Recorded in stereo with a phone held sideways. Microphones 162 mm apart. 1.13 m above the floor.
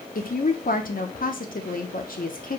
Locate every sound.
0.1 s a woman speaking: 60° left (ahead or behind), 0.8 m